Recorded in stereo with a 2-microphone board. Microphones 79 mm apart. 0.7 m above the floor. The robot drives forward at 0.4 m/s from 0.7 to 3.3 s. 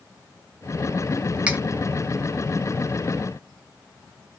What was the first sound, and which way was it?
Cutlery clinking, 15° right (ahead or behind).